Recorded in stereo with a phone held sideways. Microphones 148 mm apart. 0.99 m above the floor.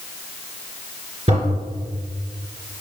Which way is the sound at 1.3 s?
40° right (ahead or behind).